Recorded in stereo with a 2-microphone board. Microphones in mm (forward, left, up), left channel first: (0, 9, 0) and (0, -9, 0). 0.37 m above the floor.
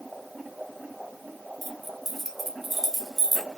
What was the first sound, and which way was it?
Keys jangling, 10° right (ahead or behind).